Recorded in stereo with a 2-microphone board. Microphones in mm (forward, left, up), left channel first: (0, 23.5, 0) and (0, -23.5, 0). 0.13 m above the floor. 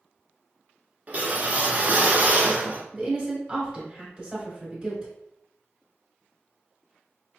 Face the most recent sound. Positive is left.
turn(degrees=-20)  # may be behind; listen again after turning